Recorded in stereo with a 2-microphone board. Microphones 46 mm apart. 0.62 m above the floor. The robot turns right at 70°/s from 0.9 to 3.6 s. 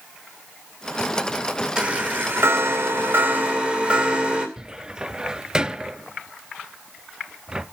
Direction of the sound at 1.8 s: 160° right.